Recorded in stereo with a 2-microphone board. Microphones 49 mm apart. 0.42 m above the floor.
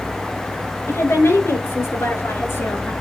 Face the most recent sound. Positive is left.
turn(degrees=75)  # may be behind; listen again after turning